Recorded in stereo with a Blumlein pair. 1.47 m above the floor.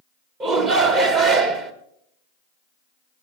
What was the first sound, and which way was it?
A shout, 30° right.